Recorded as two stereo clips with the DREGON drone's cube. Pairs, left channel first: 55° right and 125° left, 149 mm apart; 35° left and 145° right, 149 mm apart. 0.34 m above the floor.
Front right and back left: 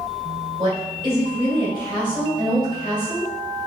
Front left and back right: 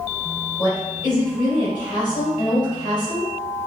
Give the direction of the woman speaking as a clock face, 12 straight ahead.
9 o'clock.